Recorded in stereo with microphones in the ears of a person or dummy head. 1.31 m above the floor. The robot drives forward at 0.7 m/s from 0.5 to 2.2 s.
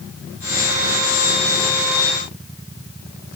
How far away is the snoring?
No snoring in this recording.